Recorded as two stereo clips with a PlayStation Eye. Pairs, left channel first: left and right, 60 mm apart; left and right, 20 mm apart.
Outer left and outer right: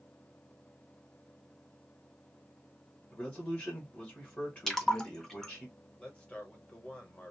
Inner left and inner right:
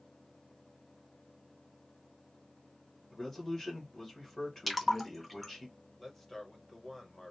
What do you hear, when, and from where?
3.1 s a man speaking: 25° left (ahead or behind), 1.2 m
4.7 s a splash: 5° left (ahead or behind), 0.7 m
6.0 s a man speaking: 20° left (ahead or behind), 1.1 m